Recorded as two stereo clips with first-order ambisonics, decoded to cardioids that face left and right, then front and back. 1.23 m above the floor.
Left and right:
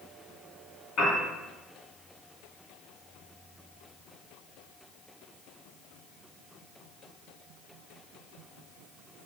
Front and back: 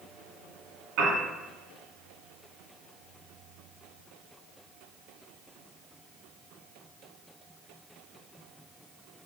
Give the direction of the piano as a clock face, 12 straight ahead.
7 o'clock.